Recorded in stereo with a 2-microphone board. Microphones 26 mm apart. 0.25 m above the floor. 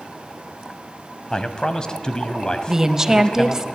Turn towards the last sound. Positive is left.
turn(degrees=-20)  # may be behind; listen again after turning